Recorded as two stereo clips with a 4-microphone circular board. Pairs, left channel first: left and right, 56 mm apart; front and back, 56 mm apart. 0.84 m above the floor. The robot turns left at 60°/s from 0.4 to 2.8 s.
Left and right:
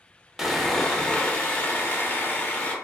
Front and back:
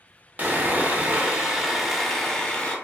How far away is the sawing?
About 0.5 m.